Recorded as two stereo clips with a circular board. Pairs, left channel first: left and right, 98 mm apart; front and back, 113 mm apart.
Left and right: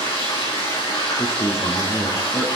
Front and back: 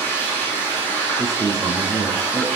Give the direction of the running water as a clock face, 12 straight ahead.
10 o'clock.